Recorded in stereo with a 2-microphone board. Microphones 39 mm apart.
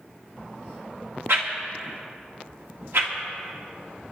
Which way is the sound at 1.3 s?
80° right.